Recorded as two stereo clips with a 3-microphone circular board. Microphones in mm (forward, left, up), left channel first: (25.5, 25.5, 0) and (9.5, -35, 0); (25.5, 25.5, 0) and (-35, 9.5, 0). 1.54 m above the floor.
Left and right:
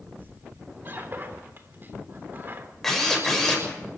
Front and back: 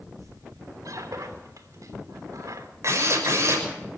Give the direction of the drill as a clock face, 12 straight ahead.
7 o'clock.